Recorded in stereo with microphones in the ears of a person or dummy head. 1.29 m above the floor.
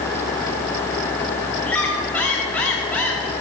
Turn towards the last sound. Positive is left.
turn(degrees=5)  # may be behind; listen again after turning